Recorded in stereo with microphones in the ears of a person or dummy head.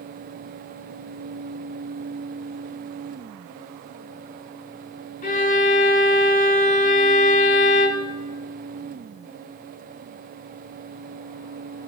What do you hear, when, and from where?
5.2 s a violin: 40° left (ahead or behind), 1.3 m